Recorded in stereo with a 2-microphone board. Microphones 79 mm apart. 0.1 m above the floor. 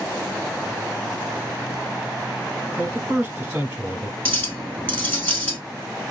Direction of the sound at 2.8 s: 20° right (ahead or behind).